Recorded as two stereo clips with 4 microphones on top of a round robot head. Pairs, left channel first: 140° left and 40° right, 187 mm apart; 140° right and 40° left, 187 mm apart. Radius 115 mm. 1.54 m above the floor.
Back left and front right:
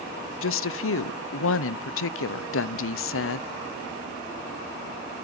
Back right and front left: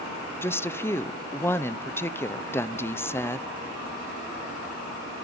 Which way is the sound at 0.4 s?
140° left.